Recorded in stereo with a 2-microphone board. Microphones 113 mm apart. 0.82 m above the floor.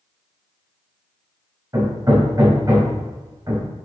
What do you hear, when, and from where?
1.7 s hammering: 30° right (ahead or behind), 3 m